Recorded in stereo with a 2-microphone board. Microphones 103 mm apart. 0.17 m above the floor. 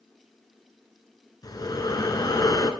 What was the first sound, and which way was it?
Breathing, 40° left (ahead or behind).